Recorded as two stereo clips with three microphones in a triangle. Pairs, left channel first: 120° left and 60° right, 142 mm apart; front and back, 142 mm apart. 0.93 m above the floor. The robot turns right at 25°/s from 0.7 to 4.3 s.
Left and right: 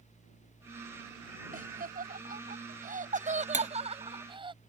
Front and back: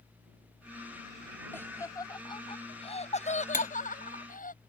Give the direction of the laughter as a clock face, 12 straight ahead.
3 o'clock.